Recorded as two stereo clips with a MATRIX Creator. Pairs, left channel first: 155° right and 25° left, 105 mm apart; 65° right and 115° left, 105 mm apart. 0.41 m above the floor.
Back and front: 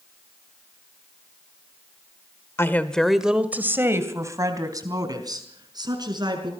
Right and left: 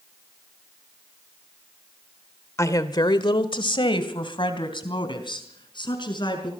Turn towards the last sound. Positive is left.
turn(degrees=-25)